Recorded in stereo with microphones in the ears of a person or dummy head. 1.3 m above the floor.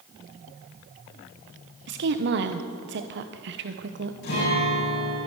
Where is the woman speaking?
60° right (ahead or behind), 1.0 m.